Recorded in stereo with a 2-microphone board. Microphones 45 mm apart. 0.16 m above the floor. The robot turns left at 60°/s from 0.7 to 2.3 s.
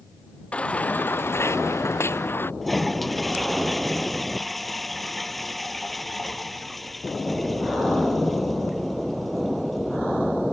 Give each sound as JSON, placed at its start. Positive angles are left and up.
{"t": 0.5, "sound": "a baby crying", "azimuth_deg": 150}
{"t": 2.6, "sound": "a toilet flushing", "side_deg": 5}